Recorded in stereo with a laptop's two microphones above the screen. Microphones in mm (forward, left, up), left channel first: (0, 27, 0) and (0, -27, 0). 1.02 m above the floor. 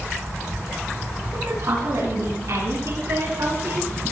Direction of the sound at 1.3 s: 70° right (ahead or behind).